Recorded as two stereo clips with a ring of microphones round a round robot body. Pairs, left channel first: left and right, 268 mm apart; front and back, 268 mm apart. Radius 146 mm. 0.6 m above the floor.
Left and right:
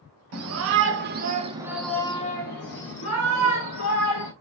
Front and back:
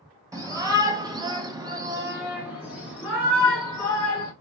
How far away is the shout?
About 1.0 m.